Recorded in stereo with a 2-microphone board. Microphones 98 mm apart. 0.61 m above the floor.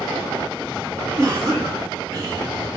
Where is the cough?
10° left (ahead or behind), 1.1 m.